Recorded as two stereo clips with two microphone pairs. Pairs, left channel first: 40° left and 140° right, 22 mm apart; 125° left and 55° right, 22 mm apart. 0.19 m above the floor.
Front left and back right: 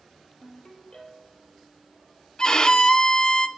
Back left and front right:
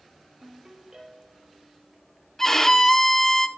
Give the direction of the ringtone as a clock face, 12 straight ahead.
12 o'clock.